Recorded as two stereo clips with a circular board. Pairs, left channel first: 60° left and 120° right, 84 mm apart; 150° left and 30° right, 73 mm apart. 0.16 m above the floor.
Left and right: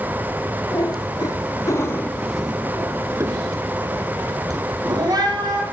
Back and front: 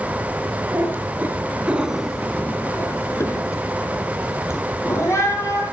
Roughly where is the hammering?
I don't hear hammering.